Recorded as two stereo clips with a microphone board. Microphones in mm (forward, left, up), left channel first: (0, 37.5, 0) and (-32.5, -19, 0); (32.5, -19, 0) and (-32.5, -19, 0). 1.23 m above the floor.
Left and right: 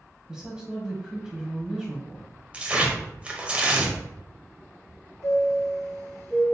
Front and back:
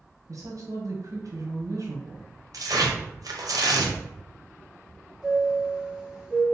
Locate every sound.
0.3 s a woman speaking: 165° left, 0.9 m
2.5 s tearing paper: 170° left, 0.7 m
5.2 s a chime: 100° left, 1.4 m